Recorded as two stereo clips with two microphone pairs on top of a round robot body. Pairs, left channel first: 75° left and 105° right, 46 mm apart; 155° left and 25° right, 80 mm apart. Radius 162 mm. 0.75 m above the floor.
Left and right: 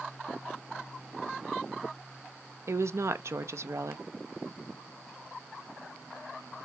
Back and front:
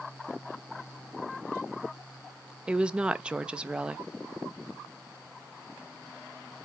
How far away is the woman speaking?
About 0.6 m.